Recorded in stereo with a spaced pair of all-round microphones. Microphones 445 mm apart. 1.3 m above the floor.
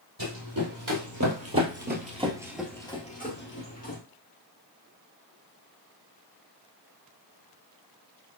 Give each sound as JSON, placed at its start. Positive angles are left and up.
{"t": 0.2, "sound": "running footsteps", "side_deg": -55, "distance_m": 2.5}